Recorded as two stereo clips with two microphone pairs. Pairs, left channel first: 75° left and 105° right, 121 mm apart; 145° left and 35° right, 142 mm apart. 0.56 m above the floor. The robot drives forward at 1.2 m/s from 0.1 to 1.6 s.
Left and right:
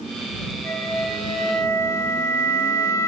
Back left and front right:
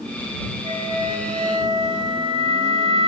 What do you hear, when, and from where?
0.6 s a flute: 5° left, 3 m; by 3.1 s 10° left, 2.0 m